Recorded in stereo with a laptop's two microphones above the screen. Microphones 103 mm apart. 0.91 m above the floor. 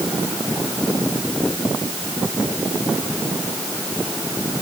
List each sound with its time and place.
Only background noise.